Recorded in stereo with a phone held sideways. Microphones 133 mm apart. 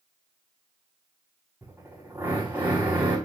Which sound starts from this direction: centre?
A drill, at 1.6 s.